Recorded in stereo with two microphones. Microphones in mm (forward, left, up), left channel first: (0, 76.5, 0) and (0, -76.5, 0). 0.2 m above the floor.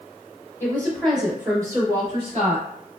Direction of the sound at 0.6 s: 15° left (ahead or behind).